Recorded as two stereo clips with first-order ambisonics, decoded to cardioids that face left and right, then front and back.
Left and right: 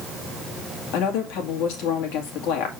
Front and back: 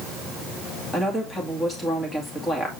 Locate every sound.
0.9 s a woman speaking: 75° left, 2 m